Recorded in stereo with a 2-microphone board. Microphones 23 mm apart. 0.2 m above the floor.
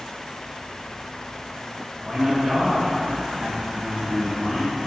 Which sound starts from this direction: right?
A man speaking, at 2.0 s.